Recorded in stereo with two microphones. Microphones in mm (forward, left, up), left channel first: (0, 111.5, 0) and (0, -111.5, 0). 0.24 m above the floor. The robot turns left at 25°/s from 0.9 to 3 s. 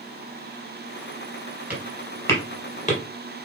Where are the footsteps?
10° right (ahead or behind), 5 m; by 3.0 s 35° left (ahead or behind), 4.5 m.